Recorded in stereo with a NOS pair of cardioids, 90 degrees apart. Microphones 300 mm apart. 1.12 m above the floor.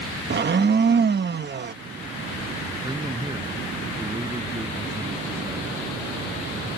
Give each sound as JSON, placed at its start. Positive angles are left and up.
{"t": 0.3, "sound": "a blender", "azimuth_deg": -35}
{"t": 2.8, "sound": "a man speaking", "azimuth_deg": -15}